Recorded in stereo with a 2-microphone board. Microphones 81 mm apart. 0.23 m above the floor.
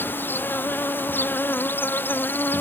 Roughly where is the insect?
Left.